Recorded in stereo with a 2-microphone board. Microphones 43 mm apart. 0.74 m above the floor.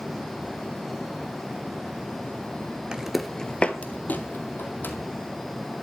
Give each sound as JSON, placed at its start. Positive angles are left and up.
{"t": 2.9, "sound": "footsteps", "side_deg": -20, "distance_m": 0.7}